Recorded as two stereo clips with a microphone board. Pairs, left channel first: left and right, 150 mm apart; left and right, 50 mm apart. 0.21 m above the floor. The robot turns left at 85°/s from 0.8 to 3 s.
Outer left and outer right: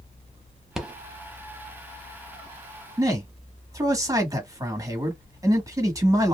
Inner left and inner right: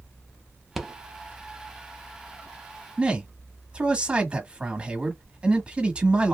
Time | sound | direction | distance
0.8 | a rattle | 5° right (ahead or behind) | 0.7 m
3.0 | a man speaking | 25° right (ahead or behind) | 1.1 m